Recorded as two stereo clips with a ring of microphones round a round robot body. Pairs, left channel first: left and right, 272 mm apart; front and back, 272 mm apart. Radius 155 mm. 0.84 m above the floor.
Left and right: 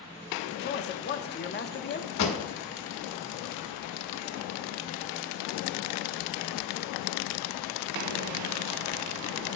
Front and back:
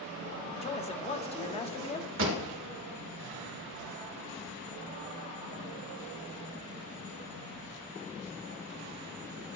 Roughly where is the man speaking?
Ahead left.